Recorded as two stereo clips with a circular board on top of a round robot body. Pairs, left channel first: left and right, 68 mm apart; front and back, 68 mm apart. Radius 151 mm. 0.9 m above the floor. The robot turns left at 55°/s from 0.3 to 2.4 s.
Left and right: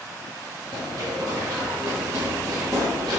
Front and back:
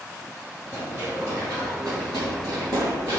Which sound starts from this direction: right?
Running footsteps, at 0.7 s.